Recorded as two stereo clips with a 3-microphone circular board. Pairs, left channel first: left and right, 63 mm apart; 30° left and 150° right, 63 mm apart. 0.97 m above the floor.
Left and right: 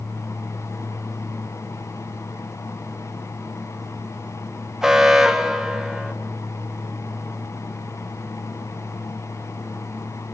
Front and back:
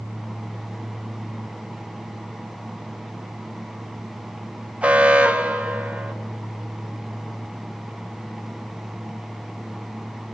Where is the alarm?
155° right, 1.4 m.